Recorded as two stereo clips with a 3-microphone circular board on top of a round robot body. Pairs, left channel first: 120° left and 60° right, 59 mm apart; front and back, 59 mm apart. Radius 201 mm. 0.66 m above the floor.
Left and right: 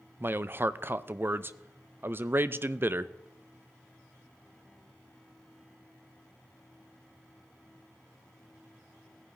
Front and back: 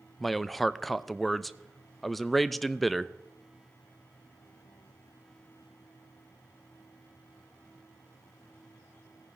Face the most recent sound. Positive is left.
turn(degrees=-90)